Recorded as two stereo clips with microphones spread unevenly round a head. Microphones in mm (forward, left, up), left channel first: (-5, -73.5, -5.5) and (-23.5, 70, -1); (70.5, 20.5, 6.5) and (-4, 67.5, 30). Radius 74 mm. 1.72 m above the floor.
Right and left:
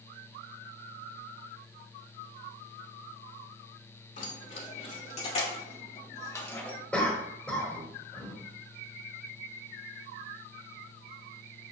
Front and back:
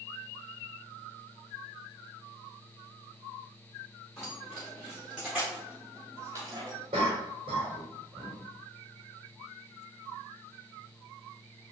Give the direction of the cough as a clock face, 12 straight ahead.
6 o'clock.